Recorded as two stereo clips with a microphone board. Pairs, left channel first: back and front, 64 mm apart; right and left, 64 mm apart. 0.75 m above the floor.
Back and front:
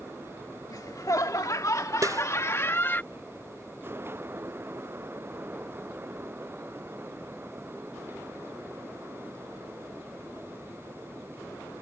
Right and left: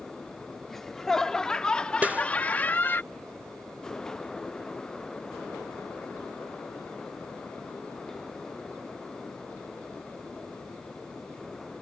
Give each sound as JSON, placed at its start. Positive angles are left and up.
{"t": 0.7, "sound": "laughter", "azimuth_deg": -175}
{"t": 2.0, "sound": "a snare drum", "azimuth_deg": 25}